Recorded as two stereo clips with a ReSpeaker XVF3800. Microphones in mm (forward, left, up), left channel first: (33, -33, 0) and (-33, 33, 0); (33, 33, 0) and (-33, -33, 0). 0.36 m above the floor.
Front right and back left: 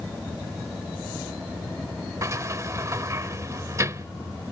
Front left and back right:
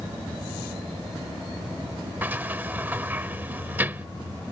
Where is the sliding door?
165° left.